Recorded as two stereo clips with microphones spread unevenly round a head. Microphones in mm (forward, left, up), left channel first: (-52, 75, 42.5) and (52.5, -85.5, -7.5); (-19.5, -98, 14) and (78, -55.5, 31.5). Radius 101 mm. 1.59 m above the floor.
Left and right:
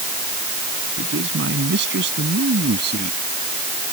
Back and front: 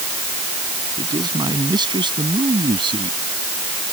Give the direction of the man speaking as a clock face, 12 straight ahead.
1 o'clock.